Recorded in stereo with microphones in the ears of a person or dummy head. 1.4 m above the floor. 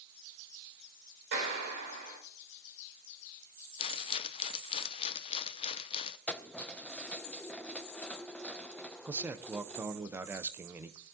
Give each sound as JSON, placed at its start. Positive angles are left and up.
{"t": 1.3, "sound": "a clap", "side_deg": -60, "distance_m": 6.0}
{"t": 3.8, "sound": "a rattle", "side_deg": 30, "distance_m": 0.7}
{"t": 6.3, "sound": "keys jangling", "side_deg": 5, "distance_m": 0.6}
{"t": 9.1, "sound": "a man speaking", "side_deg": -5, "distance_m": 0.6}